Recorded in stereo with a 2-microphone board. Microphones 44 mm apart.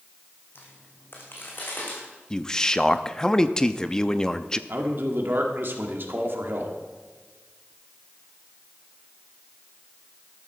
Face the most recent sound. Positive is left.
turn(degrees=-55)  # may be behind; listen again after turning